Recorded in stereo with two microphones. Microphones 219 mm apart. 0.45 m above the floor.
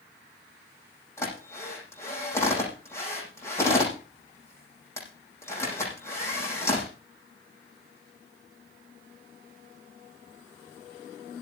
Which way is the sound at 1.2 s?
10° left (ahead or behind).